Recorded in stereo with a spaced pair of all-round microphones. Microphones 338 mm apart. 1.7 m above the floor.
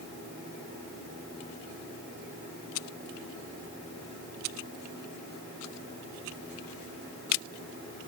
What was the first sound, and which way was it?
Only background noise.